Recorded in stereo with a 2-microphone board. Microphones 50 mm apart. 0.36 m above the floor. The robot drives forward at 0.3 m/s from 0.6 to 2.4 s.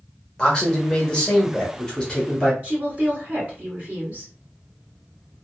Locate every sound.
0.4 s a man speaking: 20° left (ahead or behind), 1.0 m
2.6 s a woman speaking: 35° right (ahead or behind), 1.8 m